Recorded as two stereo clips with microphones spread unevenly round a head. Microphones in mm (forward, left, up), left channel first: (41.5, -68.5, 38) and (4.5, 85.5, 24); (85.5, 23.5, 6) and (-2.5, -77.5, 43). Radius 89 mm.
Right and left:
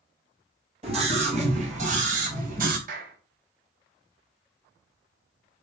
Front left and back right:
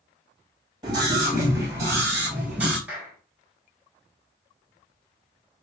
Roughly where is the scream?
Behind.